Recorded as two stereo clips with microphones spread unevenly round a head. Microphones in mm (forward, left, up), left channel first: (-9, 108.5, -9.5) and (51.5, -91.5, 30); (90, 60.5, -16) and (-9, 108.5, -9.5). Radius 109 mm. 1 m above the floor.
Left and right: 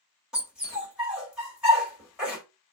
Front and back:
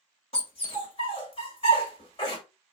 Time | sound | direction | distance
0.3 | a dog barking | 10° left | 1.3 m